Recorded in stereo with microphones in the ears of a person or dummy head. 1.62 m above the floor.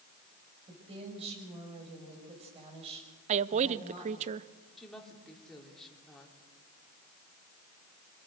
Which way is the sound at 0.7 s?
30° right (ahead or behind).